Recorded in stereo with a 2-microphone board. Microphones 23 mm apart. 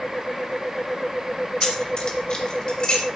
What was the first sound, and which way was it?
Keys jangling, 35° left (ahead or behind).